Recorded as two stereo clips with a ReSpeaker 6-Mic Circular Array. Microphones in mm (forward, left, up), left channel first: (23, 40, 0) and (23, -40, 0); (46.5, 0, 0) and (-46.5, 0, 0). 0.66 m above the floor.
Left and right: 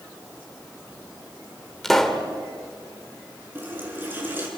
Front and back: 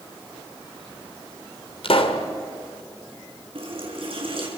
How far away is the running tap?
About 6 m.